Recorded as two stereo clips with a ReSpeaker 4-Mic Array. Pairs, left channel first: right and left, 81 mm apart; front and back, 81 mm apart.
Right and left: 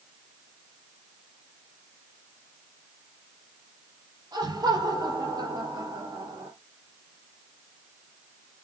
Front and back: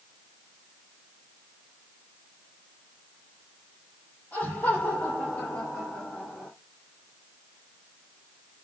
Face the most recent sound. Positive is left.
turn(degrees=75)